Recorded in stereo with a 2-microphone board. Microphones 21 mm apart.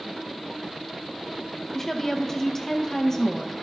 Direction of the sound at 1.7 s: 25° left (ahead or behind).